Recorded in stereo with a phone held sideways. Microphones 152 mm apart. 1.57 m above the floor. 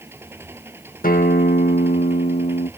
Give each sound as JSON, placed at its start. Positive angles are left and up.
{"t": 0.0, "sound": "an engine running", "side_deg": -15}
{"t": 1.0, "sound": "a guitar", "side_deg": 65}